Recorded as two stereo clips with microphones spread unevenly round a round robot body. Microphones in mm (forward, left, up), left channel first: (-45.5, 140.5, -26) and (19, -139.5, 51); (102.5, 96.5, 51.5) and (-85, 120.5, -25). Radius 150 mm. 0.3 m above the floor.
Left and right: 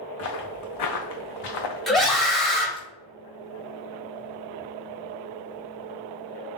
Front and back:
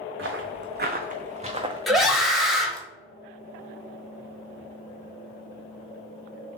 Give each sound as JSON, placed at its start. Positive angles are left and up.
{"t": 0.2, "sound": "footsteps", "azimuth_deg": 150, "distance_m": 1.3}
{"t": 1.9, "sound": "a scream", "azimuth_deg": 155, "distance_m": 0.9}